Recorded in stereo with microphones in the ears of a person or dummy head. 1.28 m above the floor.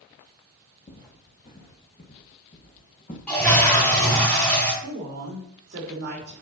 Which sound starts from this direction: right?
A woman speaking, at 4.8 s.